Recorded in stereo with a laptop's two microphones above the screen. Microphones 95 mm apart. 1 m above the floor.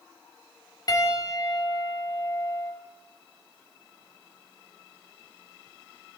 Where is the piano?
45° left (ahead or behind), 3 m.